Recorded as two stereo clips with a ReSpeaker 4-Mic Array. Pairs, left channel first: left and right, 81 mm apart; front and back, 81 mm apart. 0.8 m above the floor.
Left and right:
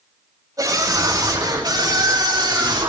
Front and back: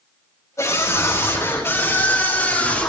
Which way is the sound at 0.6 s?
50° right.